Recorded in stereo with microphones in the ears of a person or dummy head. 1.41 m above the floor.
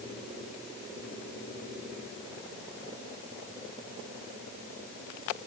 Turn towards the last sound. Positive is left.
No sound to turn to.